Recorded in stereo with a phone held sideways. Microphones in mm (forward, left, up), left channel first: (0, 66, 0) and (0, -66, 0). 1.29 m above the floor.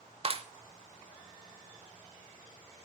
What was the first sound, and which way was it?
A clap, 40° right (ahead or behind).